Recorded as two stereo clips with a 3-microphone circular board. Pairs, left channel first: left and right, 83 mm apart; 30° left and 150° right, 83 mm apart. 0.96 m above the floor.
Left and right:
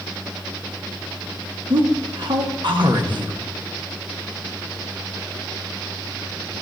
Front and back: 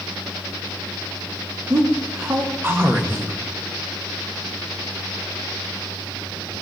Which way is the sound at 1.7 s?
90° right.